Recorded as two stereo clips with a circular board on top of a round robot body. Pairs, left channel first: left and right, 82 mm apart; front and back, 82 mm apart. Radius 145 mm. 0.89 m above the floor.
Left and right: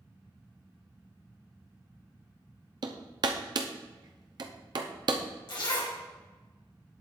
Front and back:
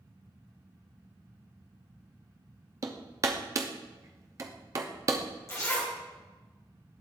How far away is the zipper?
About 1.9 m.